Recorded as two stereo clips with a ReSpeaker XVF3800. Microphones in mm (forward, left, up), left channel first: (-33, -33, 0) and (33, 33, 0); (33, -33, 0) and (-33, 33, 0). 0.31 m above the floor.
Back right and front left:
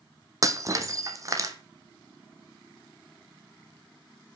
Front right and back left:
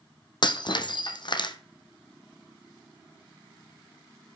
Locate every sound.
0.4 s breaking glass: 10° right, 1.5 m